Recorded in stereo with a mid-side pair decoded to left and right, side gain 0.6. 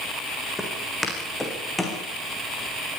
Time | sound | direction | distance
0.6 | footsteps | 5° left | 8 m